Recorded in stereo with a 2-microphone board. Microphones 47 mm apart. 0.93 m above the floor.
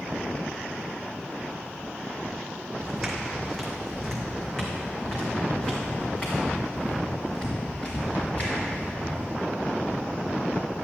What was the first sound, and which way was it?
Footsteps, 5° right (ahead or behind).